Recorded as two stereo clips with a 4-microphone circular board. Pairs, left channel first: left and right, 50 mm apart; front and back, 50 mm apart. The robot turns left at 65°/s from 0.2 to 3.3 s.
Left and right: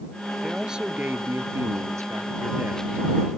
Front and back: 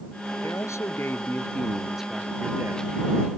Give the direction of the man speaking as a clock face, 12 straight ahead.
12 o'clock.